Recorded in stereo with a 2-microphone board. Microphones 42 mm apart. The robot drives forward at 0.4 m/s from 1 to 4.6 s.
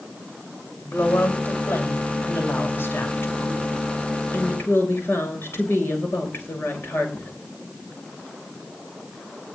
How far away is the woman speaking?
About 6.5 m.